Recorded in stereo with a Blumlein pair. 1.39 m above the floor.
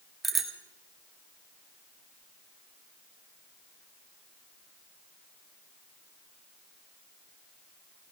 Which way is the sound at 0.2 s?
10° right.